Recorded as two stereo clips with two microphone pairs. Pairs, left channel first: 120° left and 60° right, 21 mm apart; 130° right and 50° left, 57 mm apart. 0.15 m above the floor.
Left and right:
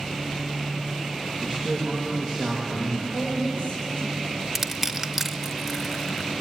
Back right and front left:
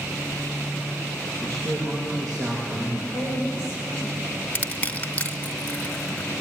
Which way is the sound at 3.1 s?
80° left.